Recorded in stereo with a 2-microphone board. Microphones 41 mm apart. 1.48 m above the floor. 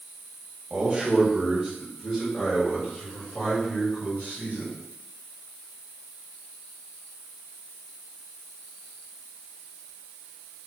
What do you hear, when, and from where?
0.7 s a man speaking: 20° right (ahead or behind), 1.3 m; by 4.8 s 50° left (ahead or behind), 3.5 m